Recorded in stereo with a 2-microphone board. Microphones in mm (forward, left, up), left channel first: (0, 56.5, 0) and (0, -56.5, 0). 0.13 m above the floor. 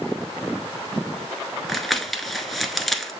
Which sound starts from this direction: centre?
Crumpling, at 1.7 s.